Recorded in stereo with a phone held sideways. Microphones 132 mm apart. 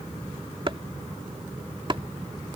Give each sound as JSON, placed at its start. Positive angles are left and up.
{"t": 0.7, "sound": "chopping", "side_deg": -40}